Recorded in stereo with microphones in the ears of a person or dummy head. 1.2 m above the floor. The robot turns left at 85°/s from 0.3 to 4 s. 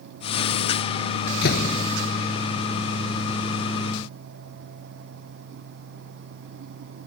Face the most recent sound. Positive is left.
turn(degrees=-155)